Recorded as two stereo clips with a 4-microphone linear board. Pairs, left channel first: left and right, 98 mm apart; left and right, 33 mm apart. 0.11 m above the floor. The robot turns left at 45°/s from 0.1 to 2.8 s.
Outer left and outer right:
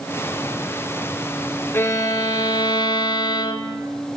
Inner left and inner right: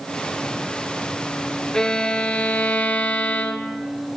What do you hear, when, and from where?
1.7 s a violin: 150° left, 0.6 m; by 3.8 s 100° left, 0.6 m